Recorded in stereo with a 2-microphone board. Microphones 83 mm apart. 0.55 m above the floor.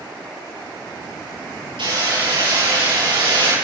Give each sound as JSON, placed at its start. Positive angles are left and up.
{"t": 1.8, "sound": "hammering", "side_deg": -80, "distance_m": 8.0}